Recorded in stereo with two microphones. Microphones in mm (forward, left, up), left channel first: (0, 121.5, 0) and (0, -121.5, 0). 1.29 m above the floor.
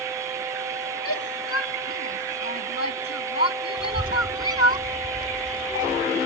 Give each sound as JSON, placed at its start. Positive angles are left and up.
{"t": 1.1, "sound": "a shout", "side_deg": 75}
{"t": 3.8, "sound": "a child speaking", "side_deg": -20}